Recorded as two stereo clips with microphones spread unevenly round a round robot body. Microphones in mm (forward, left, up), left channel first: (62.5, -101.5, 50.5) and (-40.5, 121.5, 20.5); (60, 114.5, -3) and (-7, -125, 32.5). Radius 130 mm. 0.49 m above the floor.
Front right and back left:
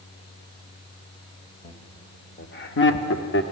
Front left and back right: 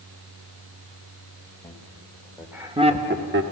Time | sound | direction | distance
1.6 | laughter | straight ahead | 2.5 m